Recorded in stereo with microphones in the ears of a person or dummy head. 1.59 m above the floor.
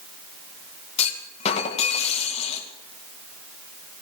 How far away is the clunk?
About 2.0 m.